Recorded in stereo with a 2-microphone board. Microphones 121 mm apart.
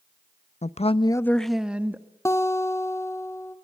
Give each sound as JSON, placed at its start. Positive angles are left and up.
{"t": 0.6, "sound": "a woman speaking", "side_deg": 70, "distance_m": 0.6}
{"t": 2.2, "sound": "a guitar", "side_deg": 25, "distance_m": 1.2}